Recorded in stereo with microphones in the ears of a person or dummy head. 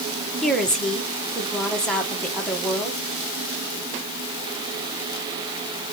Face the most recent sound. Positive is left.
turn(degrees=5)  # may be behind; listen again after turning